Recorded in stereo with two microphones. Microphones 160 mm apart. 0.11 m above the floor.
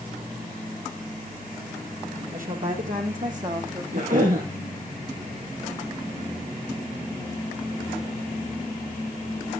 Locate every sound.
2.3 s a woman speaking: 65° right (ahead or behind), 4 m; by 3.8 s 50° right (ahead or behind), 5.5 m
3.9 s a cough: 60° right (ahead or behind), 4 m